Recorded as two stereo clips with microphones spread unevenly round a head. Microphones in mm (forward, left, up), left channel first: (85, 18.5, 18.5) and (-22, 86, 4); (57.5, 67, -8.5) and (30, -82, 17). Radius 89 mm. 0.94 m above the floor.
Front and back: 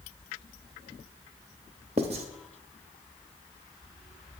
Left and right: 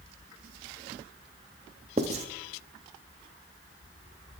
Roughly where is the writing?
Behind right.